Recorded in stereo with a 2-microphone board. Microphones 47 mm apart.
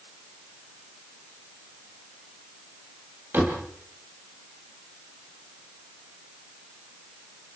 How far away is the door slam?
About 5.5 m.